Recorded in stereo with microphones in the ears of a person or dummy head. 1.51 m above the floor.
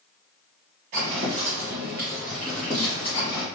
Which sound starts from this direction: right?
Footsteps, at 0.9 s.